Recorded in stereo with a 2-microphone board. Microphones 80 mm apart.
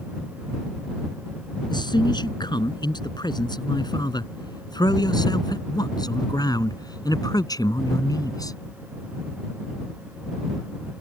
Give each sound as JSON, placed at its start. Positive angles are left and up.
{"t": 1.7, "sound": "a man speaking", "side_deg": 65}